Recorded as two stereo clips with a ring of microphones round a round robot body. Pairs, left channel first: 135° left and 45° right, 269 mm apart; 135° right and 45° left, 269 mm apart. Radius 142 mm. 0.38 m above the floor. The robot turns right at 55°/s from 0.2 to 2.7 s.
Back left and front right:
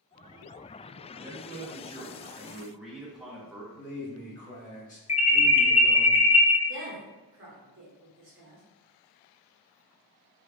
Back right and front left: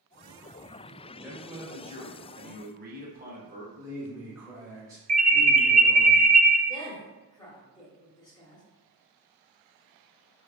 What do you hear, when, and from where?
1.2 s a man speaking: 40° right, 0.9 m; by 3.6 s 40° left, 0.9 m
3.7 s a man speaking: 110° left, 1.6 m
5.1 s an alarm: 85° left, 0.5 m
6.7 s a woman speaking: 65° right, 1.1 m